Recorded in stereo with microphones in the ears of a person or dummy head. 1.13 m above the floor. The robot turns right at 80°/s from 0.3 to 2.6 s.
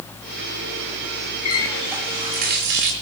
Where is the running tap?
145° left, 3 m; by 2.9 s 120° right, 3 m.